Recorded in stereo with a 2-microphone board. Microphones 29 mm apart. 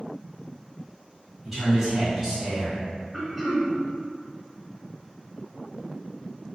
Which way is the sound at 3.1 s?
5° right (ahead or behind).